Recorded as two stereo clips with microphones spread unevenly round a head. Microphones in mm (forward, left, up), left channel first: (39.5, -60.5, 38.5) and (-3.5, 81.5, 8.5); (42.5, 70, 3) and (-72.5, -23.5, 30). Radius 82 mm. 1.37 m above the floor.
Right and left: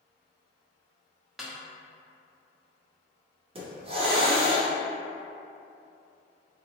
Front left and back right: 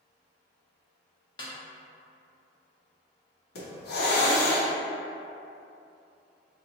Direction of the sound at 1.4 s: 10° right.